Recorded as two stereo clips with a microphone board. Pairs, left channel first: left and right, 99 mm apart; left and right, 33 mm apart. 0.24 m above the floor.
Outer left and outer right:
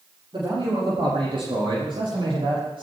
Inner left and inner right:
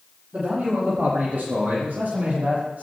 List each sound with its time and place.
0.3 s a man speaking: 55° right (ahead or behind), 7.5 m; by 2.8 s 60° right (ahead or behind), 6 m